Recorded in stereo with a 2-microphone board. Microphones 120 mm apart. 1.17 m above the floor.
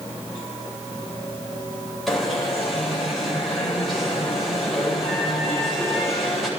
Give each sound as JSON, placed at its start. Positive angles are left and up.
{"t": 2.1, "sound": "an alarm", "side_deg": 0, "distance_m": 8.0}